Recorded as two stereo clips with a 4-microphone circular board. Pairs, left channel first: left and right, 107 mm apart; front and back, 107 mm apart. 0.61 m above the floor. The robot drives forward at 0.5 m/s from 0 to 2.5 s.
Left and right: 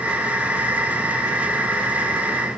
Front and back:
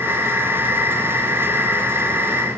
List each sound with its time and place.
Only background noise.